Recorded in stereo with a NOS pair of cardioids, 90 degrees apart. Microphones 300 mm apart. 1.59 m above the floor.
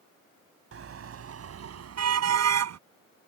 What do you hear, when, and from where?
0.7 s a car horn: 50° right; by 2.8 s 60° right